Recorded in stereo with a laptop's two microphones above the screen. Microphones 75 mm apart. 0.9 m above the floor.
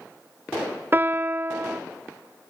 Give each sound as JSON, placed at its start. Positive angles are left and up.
{"t": 0.9, "sound": "a piano", "side_deg": -30, "distance_m": 0.6}